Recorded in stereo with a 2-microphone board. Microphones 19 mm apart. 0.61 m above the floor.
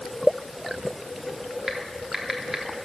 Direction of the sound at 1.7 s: 20° right (ahead or behind).